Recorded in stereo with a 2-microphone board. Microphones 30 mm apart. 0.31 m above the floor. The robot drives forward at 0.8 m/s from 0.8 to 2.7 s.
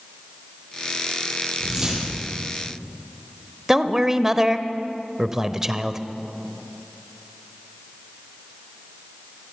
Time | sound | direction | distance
1.6 | a whoosh | 25° right (ahead or behind) | 5.5 m
3.7 | a man speaking | 15° right (ahead or behind) | 0.9 m